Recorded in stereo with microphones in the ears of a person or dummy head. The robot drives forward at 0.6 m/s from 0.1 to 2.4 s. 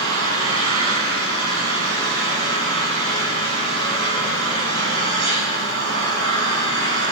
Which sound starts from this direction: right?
An engine running, at 0.0 s.